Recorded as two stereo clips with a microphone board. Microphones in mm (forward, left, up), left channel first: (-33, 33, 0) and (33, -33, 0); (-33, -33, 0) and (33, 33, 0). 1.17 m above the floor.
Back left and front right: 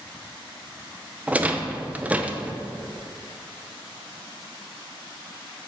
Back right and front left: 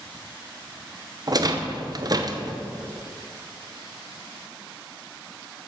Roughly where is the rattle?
Ahead left.